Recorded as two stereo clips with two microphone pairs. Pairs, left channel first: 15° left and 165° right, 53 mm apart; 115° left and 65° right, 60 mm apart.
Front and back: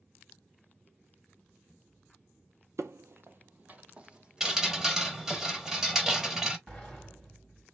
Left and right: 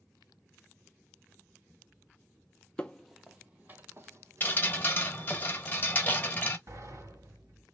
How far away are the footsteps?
About 0.5 m.